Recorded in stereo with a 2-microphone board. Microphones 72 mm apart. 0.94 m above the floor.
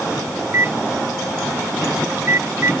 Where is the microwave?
35° right (ahead or behind).